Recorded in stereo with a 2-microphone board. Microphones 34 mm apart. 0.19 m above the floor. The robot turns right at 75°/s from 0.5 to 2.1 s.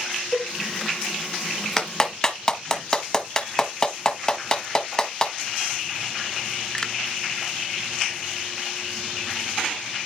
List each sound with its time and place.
0.3 s a cowbell: 70° left (ahead or behind), 5.5 m
1.8 s a clap: 20° left (ahead or behind), 1.1 m; by 6.9 s 25° left (ahead or behind), 1.1 m